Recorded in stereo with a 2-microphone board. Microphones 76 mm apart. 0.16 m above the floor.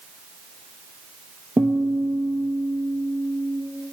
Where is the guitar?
30° right (ahead or behind), 1.0 m.